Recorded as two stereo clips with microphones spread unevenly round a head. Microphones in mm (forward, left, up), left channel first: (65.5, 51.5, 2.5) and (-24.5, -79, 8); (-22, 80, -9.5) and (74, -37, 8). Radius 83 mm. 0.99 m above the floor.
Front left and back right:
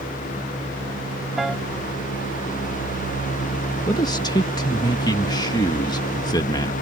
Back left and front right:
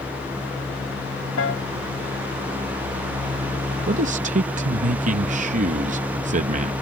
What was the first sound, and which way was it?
A piano, 150° left.